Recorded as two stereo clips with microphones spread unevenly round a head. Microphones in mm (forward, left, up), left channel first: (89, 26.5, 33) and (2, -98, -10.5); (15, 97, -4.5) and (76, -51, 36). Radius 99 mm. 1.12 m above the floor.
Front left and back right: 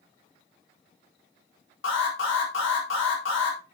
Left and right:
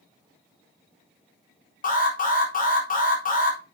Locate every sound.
1.8 s an alarm: 80° left, 4 m